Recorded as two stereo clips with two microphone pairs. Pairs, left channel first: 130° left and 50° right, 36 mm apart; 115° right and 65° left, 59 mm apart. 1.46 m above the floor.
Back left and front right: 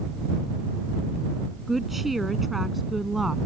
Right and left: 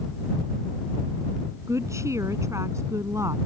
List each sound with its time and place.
1.7 s a woman speaking: 35° left